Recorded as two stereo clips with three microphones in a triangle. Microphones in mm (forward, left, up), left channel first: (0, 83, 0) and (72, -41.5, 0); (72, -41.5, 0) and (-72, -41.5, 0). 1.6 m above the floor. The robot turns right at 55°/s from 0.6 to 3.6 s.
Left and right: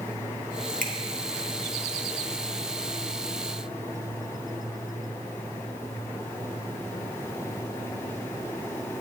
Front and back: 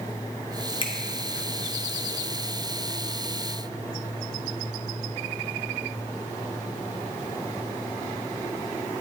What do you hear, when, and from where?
0.8 s a finger snap: 55° right, 0.7 m; by 0.9 s 50° right, 0.7 m